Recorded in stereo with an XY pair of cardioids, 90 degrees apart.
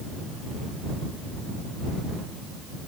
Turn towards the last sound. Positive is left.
No sound to turn to.